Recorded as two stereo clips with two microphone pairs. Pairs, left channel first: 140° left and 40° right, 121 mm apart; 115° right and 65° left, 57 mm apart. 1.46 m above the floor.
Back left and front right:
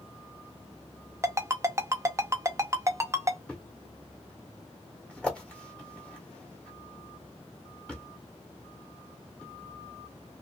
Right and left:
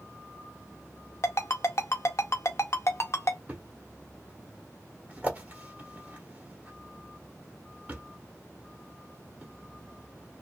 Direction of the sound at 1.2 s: 100° right.